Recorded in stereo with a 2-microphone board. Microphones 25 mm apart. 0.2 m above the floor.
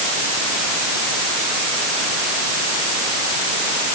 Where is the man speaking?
No man speaking in this recording.